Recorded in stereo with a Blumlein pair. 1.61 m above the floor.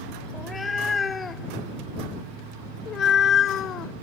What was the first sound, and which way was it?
A cat meowing, 15° left.